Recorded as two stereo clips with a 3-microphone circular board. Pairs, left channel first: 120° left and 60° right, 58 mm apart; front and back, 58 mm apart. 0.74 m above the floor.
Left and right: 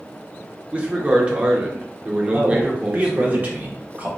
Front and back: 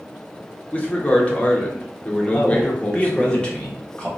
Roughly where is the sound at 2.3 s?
Ahead right.